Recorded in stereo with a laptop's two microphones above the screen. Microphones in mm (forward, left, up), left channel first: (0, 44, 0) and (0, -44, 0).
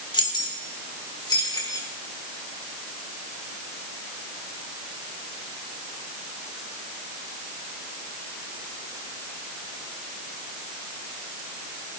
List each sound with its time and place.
0.1 s keys jangling: 65° left (ahead or behind), 2.5 m; by 1.9 s 50° left (ahead or behind), 3 m